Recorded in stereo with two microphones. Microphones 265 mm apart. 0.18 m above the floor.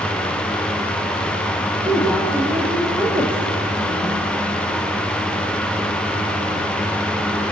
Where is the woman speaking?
10° right (ahead or behind), 3.5 m.